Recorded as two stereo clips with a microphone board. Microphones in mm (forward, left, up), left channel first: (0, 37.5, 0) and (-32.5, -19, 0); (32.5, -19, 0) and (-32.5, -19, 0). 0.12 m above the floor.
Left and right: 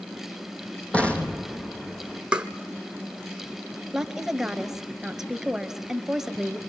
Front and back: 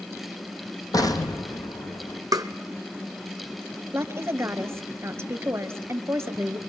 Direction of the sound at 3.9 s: 160° left.